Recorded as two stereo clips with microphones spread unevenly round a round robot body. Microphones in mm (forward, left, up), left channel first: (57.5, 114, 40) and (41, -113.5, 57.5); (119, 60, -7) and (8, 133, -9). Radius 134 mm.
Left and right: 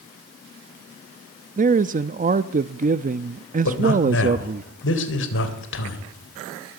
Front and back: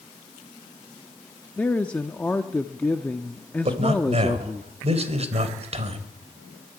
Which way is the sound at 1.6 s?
110° right.